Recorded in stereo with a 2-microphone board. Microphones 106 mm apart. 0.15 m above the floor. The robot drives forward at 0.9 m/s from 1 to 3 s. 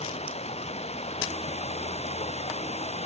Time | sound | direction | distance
0.0 | running water | 80° left | ?